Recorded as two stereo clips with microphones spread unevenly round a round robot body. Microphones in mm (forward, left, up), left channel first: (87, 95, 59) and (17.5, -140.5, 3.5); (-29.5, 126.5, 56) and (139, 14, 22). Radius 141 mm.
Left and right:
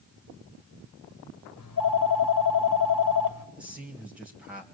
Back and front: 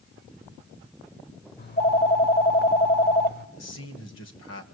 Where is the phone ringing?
105° left, 1.7 m.